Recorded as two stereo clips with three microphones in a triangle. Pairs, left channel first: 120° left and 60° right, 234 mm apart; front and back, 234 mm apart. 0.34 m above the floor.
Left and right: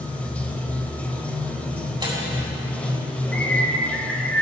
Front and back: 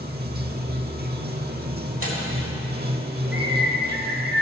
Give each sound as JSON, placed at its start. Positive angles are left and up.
{"t": 0.0, "sound": "running water", "azimuth_deg": -160, "distance_m": 0.9}
{"t": 2.0, "sound": "tearing paper", "azimuth_deg": 10, "distance_m": 3.5}
{"t": 3.3, "sound": "a bird", "azimuth_deg": -155, "distance_m": 3.0}